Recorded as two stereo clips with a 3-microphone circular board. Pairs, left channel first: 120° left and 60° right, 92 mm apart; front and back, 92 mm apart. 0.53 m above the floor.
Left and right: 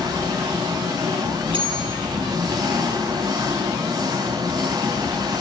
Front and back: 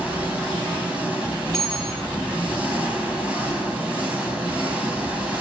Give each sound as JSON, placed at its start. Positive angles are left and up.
{"t": 0.0, "sound": "an engine running", "azimuth_deg": -105, "distance_m": 3.5}
{"t": 1.5, "sound": "a bell", "azimuth_deg": -85, "distance_m": 8.0}